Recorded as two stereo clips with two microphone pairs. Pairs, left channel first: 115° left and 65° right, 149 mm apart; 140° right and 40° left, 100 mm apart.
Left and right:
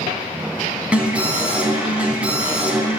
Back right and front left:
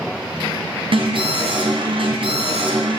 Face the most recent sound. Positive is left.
turn(degrees=15)